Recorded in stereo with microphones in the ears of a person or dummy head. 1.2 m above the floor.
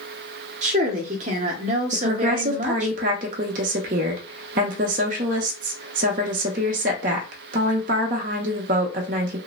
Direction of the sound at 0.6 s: 40° right (ahead or behind).